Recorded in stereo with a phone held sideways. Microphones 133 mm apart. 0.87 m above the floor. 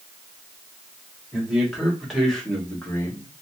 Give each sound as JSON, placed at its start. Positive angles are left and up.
{"t": 1.3, "sound": "a man speaking", "side_deg": -5, "distance_m": 2.5}